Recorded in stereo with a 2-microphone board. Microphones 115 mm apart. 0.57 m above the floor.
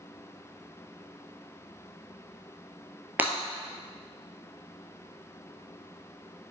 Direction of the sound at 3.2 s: 15° right (ahead or behind).